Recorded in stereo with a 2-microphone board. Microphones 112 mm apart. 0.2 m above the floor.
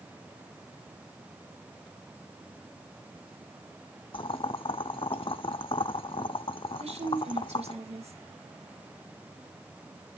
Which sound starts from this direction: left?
Boiling, at 4.1 s.